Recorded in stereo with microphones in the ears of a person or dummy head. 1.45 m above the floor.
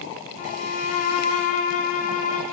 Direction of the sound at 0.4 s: 40° left (ahead or behind).